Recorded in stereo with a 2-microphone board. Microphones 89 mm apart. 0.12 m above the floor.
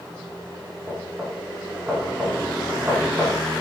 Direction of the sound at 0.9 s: 20° right (ahead or behind).